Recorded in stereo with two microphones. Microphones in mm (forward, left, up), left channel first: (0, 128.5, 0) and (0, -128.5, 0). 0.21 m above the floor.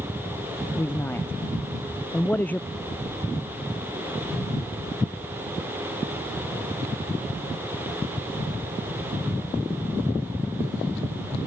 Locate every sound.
0.8 s a man speaking: 10° left (ahead or behind); by 2.6 s 5° left (ahead or behind)
2.7 s an explosion: 25° left (ahead or behind)